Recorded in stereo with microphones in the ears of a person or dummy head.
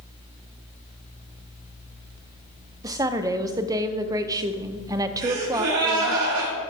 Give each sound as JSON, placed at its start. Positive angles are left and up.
{"t": 2.8, "sound": "a woman speaking", "side_deg": -20, "distance_m": 0.7}
{"t": 5.2, "sound": "a gasp", "side_deg": -80, "distance_m": 3.5}